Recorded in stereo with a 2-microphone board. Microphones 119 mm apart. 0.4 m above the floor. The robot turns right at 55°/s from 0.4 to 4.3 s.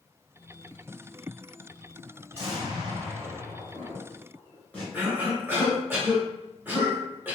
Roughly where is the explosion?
Right.